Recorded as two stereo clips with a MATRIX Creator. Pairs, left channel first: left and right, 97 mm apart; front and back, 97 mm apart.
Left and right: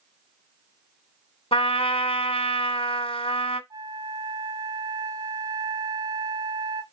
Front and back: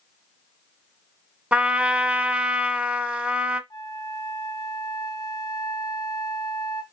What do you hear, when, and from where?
1.5 s a trumpet: 105° left, 1.4 m
3.7 s a flute: 45° right, 1.3 m